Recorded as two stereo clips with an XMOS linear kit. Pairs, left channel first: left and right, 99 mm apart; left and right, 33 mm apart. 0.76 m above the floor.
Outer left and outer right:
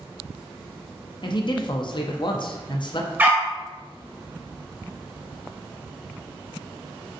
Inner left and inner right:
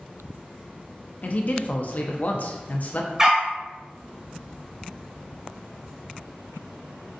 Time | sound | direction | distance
1.2 | a man speaking | 50° left (ahead or behind) | 0.6 m
3.2 | a dog barking | 20° right (ahead or behind) | 0.9 m